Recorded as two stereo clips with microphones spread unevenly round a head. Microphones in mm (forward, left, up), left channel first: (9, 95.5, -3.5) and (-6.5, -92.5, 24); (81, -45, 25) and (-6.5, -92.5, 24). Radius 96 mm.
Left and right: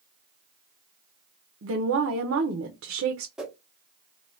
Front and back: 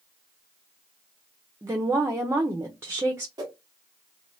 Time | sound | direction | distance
1.6 | a woman speaking | 90° right | 0.6 m
3.4 | a whoosh | 165° right | 0.6 m